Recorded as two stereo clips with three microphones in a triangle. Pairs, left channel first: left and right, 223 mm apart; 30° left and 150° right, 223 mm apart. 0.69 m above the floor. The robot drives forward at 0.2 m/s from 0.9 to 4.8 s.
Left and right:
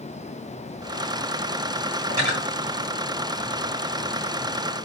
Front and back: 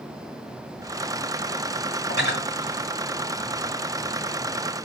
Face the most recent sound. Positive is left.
turn(degrees=75)